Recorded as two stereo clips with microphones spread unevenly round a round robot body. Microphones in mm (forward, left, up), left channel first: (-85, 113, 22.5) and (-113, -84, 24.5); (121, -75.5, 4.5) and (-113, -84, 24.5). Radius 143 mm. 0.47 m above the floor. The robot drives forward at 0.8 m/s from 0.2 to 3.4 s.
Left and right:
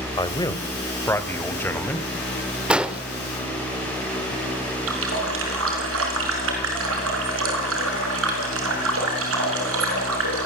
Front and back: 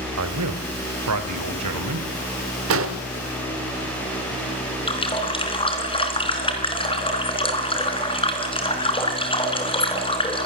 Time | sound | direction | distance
0.2 | a man speaking | 150° left | 1.8 m
2.7 | an explosion | straight behind | 1.6 m
4.9 | a running tap | 65° right | 4 m